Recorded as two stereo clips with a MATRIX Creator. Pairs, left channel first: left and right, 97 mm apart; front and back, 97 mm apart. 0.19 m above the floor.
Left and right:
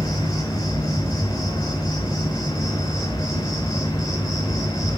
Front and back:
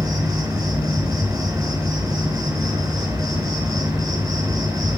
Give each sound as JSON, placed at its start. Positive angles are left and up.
{"t": 0.0, "sound": "an insect", "azimuth_deg": 135, "distance_m": 4.0}